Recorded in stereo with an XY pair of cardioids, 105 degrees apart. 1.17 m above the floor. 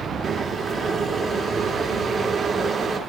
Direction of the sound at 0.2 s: 45° right.